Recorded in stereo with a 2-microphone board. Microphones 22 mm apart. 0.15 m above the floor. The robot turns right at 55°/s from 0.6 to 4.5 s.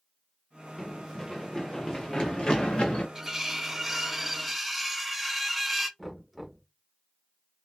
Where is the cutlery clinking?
20° right (ahead or behind), 0.8 m; by 5.9 s 5° right (ahead or behind), 0.8 m.